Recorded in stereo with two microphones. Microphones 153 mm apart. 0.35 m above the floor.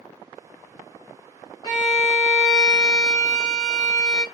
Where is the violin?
30° left (ahead or behind), 2.5 m.